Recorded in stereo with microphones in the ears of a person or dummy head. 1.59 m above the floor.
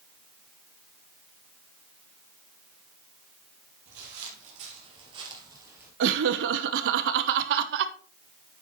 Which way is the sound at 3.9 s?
55° right (ahead or behind).